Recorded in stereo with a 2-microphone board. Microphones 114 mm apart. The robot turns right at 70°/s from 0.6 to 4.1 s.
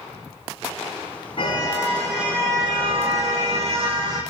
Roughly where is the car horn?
Behind left.